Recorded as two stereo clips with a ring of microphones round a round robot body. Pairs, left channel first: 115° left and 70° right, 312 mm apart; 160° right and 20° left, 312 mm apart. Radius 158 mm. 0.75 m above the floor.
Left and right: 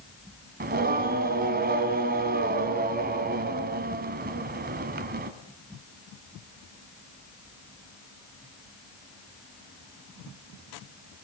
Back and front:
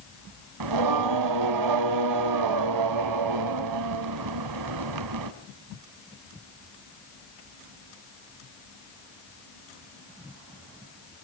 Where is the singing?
5° right, 1.5 m.